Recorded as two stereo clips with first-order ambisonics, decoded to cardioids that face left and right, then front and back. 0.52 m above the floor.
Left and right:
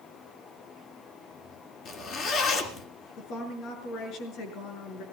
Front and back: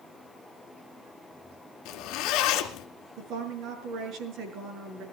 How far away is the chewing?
No chewing in this recording.